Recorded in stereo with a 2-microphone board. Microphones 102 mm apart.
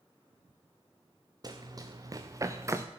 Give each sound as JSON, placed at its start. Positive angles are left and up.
{"t": 1.4, "sound": "running footsteps", "side_deg": -40, "distance_m": 2.0}